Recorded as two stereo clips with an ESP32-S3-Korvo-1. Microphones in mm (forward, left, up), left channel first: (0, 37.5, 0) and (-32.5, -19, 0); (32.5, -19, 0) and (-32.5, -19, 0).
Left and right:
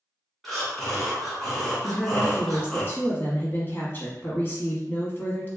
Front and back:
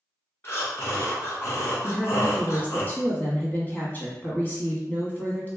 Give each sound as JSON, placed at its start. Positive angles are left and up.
{"t": 0.4, "sound": "breathing", "azimuth_deg": -25, "distance_m": 1.3}
{"t": 1.8, "sound": "a woman speaking", "azimuth_deg": 35, "distance_m": 1.2}